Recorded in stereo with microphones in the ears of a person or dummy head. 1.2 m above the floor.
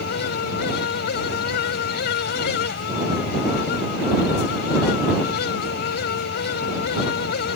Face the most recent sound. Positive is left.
turn(degrees=55)  # may be behind; listen again after turning